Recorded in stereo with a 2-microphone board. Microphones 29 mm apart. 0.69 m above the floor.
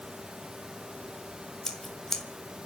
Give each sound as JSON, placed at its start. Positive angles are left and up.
{"t": 1.6, "sound": "scissors", "side_deg": 15, "distance_m": 1.6}